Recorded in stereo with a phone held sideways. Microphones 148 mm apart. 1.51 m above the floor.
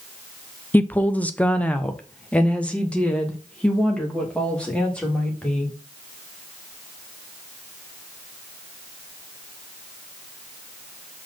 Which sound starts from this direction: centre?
A woman speaking, at 0.7 s.